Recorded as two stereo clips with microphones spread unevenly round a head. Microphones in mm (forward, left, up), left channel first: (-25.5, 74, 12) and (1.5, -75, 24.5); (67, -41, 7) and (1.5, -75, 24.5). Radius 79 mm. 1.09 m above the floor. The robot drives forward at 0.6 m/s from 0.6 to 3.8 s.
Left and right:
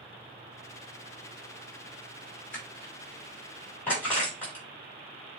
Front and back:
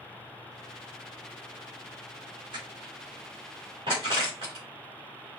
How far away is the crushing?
About 3 m.